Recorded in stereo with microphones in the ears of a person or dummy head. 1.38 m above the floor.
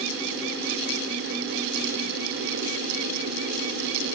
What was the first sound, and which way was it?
Only background noise.